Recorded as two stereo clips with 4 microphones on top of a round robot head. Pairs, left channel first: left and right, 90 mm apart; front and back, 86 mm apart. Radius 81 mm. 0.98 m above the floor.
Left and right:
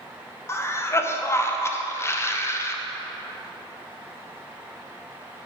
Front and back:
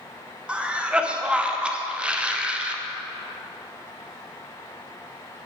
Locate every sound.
0.5 s a cough: 110° left, 0.8 m